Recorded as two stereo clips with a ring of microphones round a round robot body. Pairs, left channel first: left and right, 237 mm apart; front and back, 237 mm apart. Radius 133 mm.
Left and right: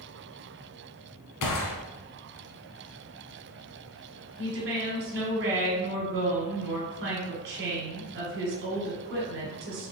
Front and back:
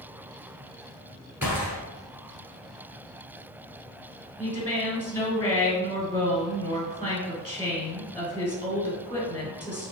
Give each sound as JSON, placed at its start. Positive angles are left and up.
{"t": 1.4, "sound": "a gunshot", "azimuth_deg": 95, "distance_m": 0.8}
{"t": 4.4, "sound": "a woman speaking", "azimuth_deg": -75, "distance_m": 1.6}